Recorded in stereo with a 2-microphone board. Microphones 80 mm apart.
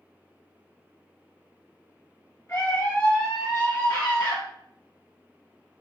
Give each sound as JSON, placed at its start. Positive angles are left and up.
{"t": 2.5, "sound": "a scream", "side_deg": 35, "distance_m": 0.8}